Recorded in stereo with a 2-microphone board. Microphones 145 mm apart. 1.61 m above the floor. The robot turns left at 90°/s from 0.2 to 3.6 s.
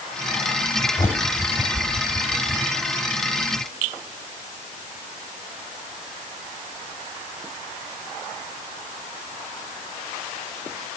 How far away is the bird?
About 2 m.